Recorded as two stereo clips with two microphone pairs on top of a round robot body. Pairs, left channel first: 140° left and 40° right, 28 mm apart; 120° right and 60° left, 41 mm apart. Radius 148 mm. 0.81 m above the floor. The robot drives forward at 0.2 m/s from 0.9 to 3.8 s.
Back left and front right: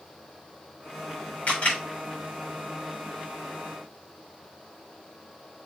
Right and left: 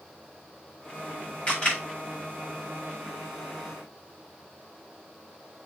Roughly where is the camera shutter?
Behind.